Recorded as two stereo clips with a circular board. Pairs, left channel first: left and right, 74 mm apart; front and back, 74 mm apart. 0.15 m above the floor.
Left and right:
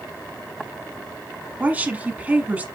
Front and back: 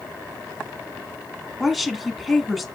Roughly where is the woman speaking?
Right.